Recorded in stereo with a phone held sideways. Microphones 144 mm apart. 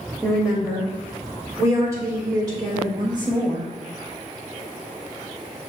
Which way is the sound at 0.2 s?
Centre (ahead or behind).